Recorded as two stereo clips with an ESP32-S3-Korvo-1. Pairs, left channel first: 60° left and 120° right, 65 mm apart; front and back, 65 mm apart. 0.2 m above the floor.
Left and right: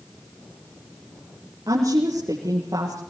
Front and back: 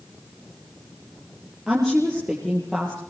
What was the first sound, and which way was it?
A woman speaking, 100° right.